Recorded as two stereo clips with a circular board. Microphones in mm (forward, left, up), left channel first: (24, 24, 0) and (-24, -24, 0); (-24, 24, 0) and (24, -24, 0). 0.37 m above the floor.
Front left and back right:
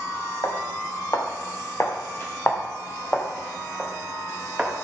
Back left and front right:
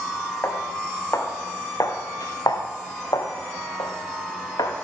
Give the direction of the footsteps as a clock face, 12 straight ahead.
9 o'clock.